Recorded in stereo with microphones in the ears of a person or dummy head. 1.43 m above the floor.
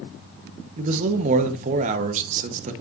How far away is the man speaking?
About 1.2 m.